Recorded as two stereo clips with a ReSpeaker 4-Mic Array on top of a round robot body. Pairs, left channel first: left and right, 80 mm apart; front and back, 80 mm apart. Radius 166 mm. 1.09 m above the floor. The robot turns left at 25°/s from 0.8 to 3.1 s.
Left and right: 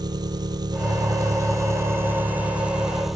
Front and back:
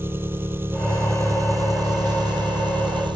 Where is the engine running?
120° right; by 3.2 s 175° right.